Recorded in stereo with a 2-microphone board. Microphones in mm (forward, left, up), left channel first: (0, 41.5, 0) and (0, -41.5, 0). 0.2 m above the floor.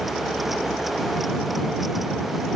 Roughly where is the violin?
No violin in this recording.